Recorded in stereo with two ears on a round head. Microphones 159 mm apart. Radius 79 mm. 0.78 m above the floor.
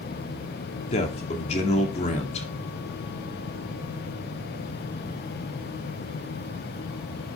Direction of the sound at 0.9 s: 40° left (ahead or behind).